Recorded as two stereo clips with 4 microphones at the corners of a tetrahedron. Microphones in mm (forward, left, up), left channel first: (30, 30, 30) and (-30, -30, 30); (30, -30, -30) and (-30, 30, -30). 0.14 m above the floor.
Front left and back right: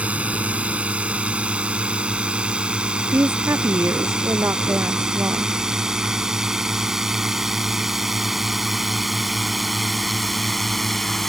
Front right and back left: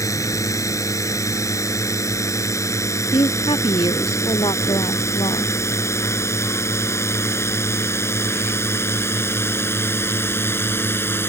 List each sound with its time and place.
0.0 s a drone: 70° right; by 11.3 s 40° right
3.1 s a woman speaking: 75° right